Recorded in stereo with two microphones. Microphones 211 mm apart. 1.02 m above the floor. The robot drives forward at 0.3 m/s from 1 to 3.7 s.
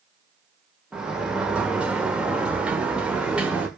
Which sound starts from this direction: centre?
A sliding door, at 0.9 s.